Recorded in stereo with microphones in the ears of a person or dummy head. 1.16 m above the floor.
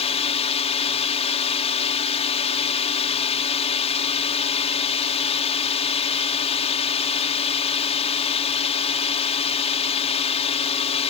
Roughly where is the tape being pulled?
No tape being pulled in this recording.